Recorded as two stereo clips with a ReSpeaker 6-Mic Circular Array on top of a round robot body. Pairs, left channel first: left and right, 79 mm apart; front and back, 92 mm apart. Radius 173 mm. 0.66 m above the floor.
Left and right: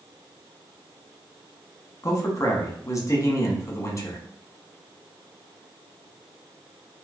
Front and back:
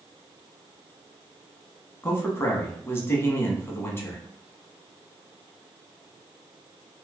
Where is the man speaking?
55° left, 1.2 m.